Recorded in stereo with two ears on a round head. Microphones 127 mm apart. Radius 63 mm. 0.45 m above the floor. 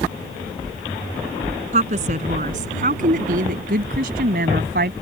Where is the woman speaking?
50° right (ahead or behind); by 4.9 s 75° right (ahead or behind).